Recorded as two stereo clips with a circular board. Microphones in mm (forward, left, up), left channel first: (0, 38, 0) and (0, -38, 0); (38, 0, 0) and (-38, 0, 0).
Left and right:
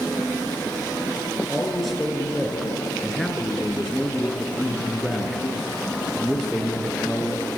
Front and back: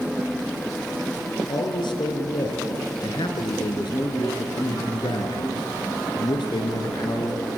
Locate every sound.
1.5 s a man speaking: straight ahead, 3.5 m